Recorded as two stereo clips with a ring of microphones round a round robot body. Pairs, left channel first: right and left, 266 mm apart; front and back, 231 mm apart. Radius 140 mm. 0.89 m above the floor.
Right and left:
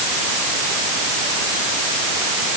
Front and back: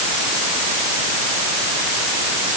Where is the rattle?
I don't hear a rattle.